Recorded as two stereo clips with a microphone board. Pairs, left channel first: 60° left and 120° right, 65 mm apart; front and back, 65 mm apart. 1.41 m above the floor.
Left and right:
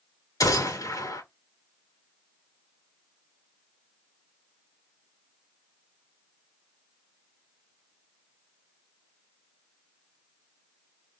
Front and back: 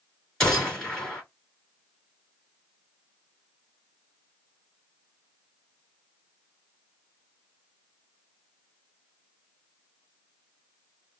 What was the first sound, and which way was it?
A gunshot, 80° left.